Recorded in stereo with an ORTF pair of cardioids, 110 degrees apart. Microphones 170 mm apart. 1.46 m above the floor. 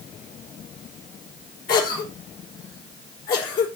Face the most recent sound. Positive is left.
turn(degrees=60)